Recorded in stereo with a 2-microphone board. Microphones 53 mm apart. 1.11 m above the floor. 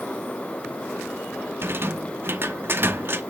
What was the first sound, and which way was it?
A rattle, 45° right (ahead or behind).